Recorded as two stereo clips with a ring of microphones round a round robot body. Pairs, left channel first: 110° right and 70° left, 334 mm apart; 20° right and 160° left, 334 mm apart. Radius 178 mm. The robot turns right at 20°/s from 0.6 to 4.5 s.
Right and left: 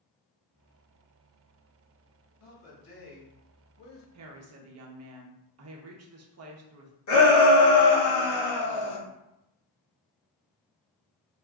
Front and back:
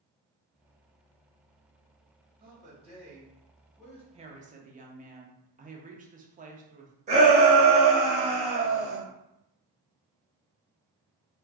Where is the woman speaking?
90° left, 0.6 m; by 7.0 s 95° left, 0.6 m.